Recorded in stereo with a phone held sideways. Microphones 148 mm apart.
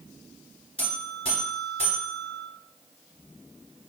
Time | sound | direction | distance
0.8 | a buzzer | 35° left (ahead or behind) | 2.5 m